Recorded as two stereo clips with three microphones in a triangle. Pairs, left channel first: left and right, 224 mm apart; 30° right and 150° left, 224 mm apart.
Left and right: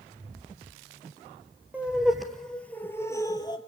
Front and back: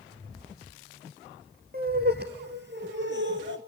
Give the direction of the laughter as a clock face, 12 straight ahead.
6 o'clock.